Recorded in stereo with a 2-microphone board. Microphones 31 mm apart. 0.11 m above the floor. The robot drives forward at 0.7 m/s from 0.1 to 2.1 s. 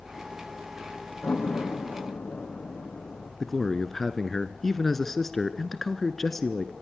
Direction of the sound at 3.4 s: 10° left (ahead or behind).